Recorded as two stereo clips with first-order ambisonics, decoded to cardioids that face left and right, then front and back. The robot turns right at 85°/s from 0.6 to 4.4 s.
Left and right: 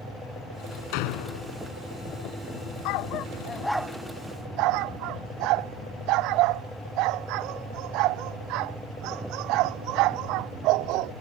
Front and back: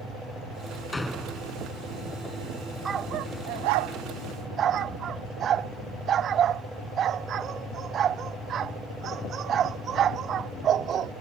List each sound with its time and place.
0.9 s a door slam: 80° left; by 1.6 s 135° left
2.9 s a dog barking: 105° left; by 11.1 s 120° right